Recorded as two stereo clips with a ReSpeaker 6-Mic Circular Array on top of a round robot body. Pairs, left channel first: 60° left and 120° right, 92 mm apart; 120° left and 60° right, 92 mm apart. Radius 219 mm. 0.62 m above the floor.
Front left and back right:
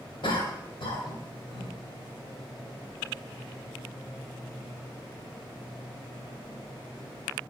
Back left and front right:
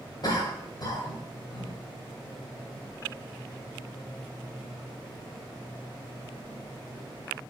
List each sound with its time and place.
0.2 s a cough: 80° left, 4.5 m